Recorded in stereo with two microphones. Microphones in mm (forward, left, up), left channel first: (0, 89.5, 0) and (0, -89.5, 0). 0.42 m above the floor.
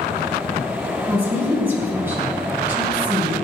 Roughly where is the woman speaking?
Centre.